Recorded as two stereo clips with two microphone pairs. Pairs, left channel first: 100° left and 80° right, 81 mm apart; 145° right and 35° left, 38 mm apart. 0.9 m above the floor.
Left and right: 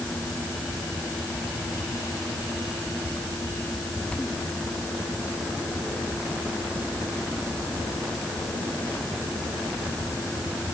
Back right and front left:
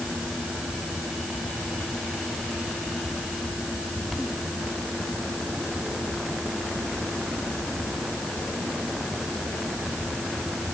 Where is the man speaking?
I don't hear a man speaking.